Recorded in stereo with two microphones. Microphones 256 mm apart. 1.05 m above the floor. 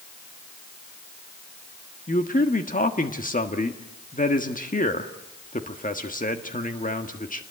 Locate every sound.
2.1 s a man speaking: 30° left (ahead or behind), 1.5 m